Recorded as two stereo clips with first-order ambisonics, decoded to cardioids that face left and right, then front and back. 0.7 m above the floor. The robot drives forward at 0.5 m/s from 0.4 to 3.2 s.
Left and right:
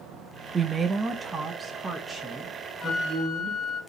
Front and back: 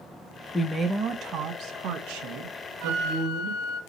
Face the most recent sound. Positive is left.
turn(degrees=160)